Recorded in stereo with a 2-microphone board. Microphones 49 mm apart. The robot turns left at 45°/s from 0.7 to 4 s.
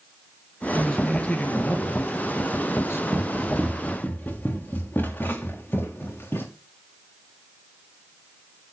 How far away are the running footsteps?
About 3 m.